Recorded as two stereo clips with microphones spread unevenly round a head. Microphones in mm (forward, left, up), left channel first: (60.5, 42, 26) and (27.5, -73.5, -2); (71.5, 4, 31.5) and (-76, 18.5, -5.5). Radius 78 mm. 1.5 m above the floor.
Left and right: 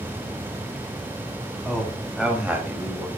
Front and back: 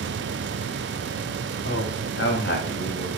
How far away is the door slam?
No door slam in this recording.